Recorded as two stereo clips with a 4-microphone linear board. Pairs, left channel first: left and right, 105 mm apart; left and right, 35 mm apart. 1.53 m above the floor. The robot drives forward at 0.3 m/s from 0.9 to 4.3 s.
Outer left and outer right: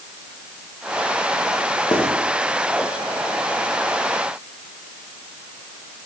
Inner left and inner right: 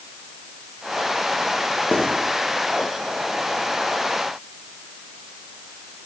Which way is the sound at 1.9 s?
40° left (ahead or behind).